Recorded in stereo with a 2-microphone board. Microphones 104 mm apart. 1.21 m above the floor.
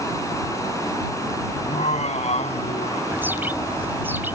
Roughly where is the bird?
Centre.